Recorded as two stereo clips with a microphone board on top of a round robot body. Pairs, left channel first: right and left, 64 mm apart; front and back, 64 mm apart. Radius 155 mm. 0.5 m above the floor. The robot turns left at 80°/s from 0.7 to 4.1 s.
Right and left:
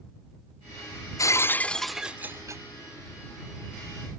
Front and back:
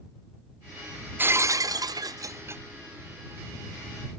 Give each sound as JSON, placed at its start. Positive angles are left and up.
{"t": 1.2, "sound": "breaking glass", "azimuth_deg": -120}